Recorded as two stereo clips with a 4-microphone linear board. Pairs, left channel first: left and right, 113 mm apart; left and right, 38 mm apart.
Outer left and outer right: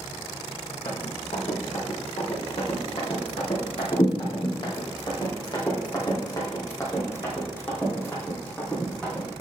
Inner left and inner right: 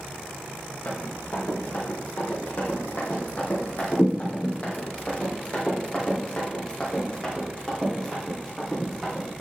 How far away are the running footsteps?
About 3.5 m.